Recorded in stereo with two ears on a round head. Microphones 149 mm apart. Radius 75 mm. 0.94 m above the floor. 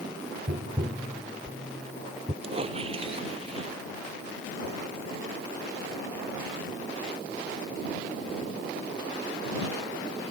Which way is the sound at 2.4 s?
35° right (ahead or behind).